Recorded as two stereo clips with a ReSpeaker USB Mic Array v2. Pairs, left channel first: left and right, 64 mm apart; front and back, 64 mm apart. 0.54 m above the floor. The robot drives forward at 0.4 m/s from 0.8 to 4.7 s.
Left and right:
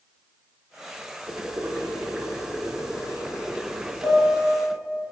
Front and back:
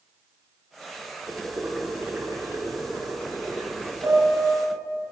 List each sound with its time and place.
1.3 s boiling: 135° right, 1.2 m; by 3.9 s 165° right, 1.9 m
4.0 s a piano: 140° right, 3 m